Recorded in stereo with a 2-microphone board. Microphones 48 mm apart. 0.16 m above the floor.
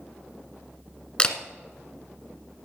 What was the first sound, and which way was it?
A camera shutter, 20° left (ahead or behind).